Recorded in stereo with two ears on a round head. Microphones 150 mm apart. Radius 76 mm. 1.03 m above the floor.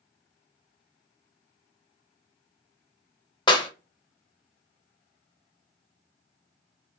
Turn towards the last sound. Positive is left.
turn(degrees=30)  # may be behind; listen again after turning